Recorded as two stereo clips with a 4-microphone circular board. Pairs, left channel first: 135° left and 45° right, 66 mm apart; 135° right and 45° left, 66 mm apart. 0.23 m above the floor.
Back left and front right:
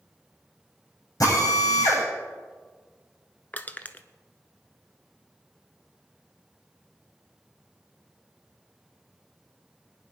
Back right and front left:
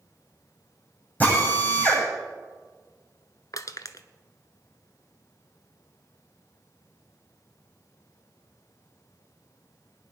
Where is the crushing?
160° right, 0.8 m.